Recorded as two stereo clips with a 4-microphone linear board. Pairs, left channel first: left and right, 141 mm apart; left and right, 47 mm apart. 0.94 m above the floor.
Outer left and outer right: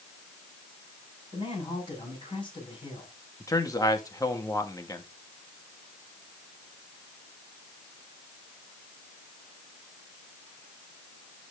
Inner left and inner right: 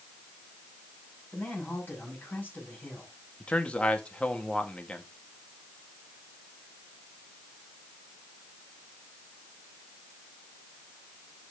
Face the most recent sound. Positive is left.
turn(degrees=25)  # may be behind; listen again after turning